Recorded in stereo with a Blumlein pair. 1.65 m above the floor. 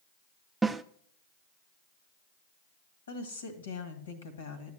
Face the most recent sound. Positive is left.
turn(degrees=65)